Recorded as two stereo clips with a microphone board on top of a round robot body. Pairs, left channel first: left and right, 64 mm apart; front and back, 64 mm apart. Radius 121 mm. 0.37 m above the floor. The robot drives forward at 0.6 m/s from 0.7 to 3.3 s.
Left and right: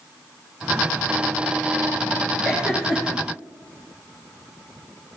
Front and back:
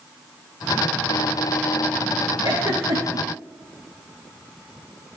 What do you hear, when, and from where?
2.4 s a giggle: 170° right, 4 m